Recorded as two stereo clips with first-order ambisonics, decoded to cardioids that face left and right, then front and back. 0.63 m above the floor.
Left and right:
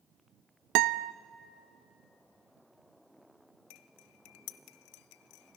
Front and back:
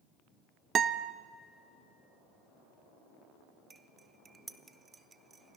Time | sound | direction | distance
0.8 | a guitar | 115° right | 0.6 m
3.7 | cutlery clinking | 105° left | 0.8 m